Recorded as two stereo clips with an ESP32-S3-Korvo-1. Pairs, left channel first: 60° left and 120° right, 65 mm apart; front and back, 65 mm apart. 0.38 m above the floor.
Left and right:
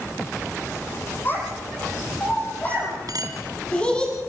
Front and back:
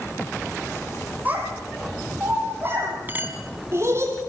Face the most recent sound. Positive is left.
turn(degrees=-120)